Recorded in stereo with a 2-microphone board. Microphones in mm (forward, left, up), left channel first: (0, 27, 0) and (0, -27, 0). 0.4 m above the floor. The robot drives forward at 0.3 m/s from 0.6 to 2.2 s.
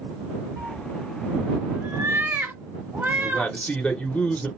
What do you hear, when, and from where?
0.6 s a cat meowing: 65° right (ahead or behind), 1.0 m; by 3.5 s 45° right (ahead or behind), 1.2 m
3.2 s a man speaking: 20° left (ahead or behind), 1.0 m